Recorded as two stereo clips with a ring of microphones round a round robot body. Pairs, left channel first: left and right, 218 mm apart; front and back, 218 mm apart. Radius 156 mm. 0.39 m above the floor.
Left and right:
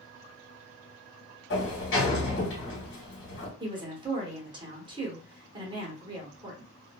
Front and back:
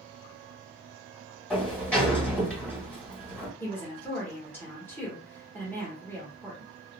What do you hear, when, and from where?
1.5 s a sliding door: 85° left, 1.6 m
3.6 s a woman speaking: 65° right, 1.1 m